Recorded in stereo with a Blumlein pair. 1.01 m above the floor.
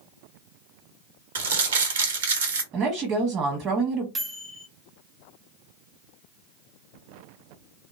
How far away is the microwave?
About 0.6 m.